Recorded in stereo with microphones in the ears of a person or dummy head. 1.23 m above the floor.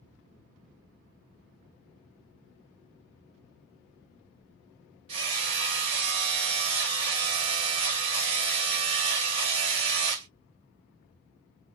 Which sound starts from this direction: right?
Hammering, at 5.1 s.